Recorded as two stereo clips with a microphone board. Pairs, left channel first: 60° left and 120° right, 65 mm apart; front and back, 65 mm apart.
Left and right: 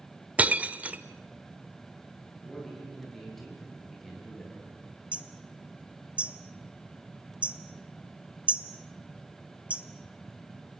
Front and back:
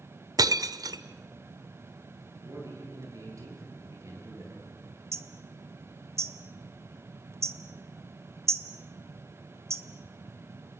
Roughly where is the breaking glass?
Behind.